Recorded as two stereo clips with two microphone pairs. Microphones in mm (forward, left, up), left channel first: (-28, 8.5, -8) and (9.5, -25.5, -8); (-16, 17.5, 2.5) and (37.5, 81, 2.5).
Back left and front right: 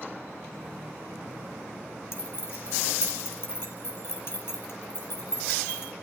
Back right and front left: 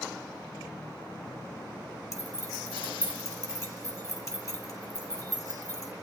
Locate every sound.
2.1 s keys jangling: straight behind, 6.5 m